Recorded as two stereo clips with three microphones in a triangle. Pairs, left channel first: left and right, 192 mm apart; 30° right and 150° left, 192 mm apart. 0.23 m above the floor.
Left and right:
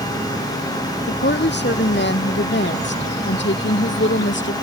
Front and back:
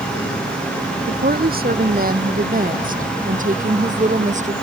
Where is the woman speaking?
115° left; by 4.5 s 100° left.